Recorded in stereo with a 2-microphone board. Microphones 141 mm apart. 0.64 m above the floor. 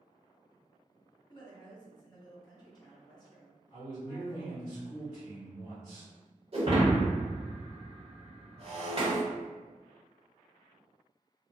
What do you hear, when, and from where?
1.3 s a woman speaking: 30° left (ahead or behind), 1.1 m
3.7 s a man speaking: 40° left (ahead or behind), 1.5 m
6.5 s breaking glass: 45° right (ahead or behind), 1.2 m